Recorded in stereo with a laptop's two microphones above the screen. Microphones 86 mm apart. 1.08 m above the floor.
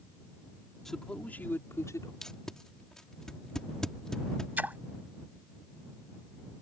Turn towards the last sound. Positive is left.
turn(degrees=-20)  # may be behind; listen again after turning